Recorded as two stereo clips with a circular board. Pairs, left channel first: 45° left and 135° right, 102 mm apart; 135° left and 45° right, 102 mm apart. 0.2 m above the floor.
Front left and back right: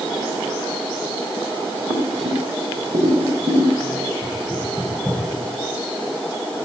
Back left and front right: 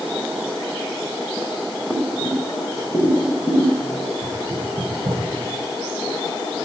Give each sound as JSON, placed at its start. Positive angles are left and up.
{"t": 1.9, "sound": "boiling", "azimuth_deg": -175, "distance_m": 3.0}
{"t": 4.2, "sound": "knocking", "azimuth_deg": -60, "distance_m": 8.5}